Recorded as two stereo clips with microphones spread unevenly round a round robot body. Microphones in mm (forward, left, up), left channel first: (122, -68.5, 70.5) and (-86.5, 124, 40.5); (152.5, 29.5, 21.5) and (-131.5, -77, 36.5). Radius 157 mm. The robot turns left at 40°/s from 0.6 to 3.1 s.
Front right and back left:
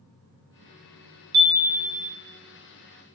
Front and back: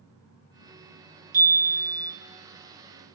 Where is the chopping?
No chopping in this recording.